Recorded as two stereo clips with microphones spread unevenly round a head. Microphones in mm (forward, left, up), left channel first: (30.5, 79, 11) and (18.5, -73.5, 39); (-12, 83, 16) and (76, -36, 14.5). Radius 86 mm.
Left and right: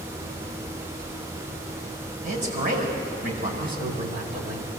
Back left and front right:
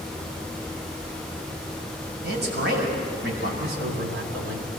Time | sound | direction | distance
2.2 | a man speaking | 60° right | 6 m
3.6 | a man speaking | 65° right | 3 m